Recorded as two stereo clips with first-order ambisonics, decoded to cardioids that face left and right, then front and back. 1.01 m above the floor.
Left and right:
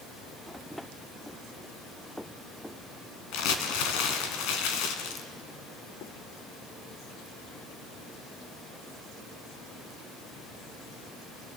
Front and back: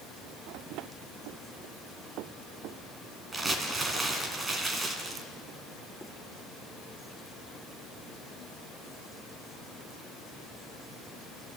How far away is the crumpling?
About 2.5 m.